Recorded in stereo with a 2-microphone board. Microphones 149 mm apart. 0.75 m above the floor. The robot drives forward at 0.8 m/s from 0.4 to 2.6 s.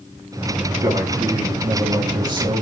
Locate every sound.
0.8 s a man speaking: 20° right (ahead or behind), 4.5 m; by 2.6 s 30° right (ahead or behind), 3.5 m